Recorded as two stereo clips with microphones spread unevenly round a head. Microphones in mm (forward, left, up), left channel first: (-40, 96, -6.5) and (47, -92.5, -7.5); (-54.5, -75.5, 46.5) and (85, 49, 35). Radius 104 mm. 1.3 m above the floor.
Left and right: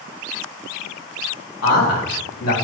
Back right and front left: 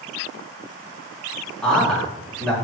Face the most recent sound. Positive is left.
turn(degrees=135)